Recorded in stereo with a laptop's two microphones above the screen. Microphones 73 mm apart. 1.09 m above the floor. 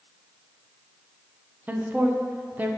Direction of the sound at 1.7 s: 25° right (ahead or behind).